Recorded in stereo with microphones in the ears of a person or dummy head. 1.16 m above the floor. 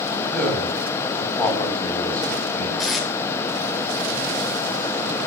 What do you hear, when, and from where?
0.2 s a man speaking: 10° left (ahead or behind), 8.5 m
2.8 s tape being pulled: centre (ahead or behind), 2 m